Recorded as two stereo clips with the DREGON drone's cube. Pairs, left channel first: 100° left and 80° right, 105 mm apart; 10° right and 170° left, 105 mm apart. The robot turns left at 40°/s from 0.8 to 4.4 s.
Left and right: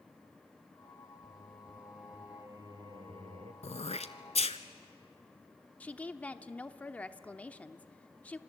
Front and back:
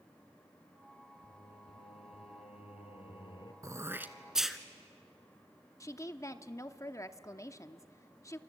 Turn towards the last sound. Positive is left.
turn(degrees=30)